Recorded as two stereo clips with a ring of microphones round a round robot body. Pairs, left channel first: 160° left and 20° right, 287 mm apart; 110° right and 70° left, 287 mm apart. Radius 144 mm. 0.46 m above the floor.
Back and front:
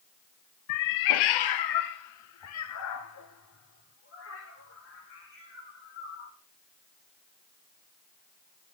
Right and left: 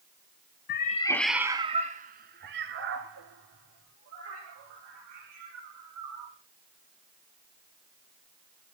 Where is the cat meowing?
165° right, 0.7 m; by 6.3 s 105° left, 4 m.